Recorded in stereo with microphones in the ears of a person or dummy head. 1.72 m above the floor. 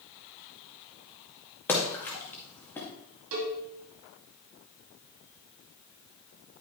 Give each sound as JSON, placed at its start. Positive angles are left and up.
{"t": 1.7, "sound": "a splash", "side_deg": 15, "distance_m": 2.0}
{"t": 3.3, "sound": "a cowbell", "side_deg": -65, "distance_m": 2.0}